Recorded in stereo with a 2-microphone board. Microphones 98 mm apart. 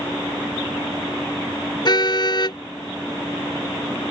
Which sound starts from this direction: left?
A car horn, at 1.9 s.